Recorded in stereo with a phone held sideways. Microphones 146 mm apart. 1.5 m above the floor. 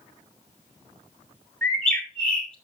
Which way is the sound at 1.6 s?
5° left (ahead or behind).